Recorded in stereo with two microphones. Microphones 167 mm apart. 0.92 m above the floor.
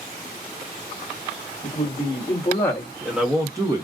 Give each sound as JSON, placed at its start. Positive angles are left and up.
{"t": 1.6, "sound": "a man speaking", "side_deg": 40, "distance_m": 1.1}